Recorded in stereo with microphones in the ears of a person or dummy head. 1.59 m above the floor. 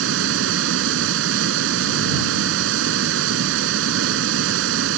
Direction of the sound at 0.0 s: 70° right (ahead or behind).